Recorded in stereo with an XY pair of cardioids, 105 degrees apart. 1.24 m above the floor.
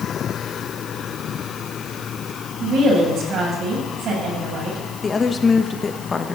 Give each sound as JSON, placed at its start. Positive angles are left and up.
{"t": 2.6, "sound": "a woman speaking", "azimuth_deg": -65, "distance_m": 8.0}
{"t": 5.0, "sound": "a woman speaking", "azimuth_deg": 30, "distance_m": 1.6}